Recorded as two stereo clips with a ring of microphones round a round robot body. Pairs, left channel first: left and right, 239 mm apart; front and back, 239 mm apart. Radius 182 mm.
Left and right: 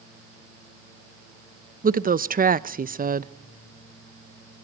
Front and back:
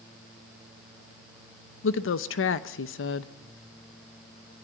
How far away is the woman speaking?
About 0.9 m.